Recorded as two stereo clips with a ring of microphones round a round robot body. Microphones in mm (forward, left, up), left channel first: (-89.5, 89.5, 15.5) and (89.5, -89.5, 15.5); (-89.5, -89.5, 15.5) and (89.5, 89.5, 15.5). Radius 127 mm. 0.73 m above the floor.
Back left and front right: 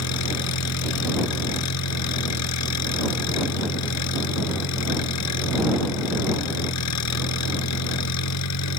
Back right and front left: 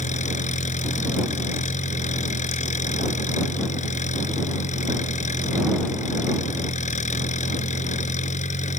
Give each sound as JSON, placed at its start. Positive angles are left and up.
{"t": 0.0, "sound": "an engine running", "azimuth_deg": 160}